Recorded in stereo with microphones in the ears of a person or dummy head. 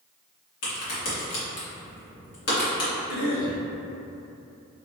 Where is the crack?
55° left (ahead or behind), 1.7 m.